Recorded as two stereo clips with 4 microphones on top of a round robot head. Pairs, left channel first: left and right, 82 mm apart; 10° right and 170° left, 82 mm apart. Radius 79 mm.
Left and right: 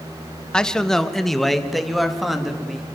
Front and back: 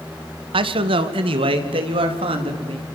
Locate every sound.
0.5 s a man speaking: 170° left, 1.8 m; by 2.9 s 175° right, 4.5 m